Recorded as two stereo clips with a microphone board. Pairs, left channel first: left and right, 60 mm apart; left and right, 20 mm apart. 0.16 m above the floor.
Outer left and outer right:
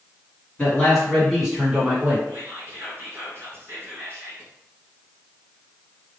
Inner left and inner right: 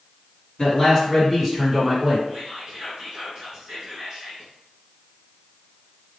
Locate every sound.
0.6 s a man speaking: 20° left (ahead or behind), 1.3 m; by 2.2 s 25° right (ahead or behind), 1.4 m
2.3 s whispering: 40° right (ahead or behind), 1.8 m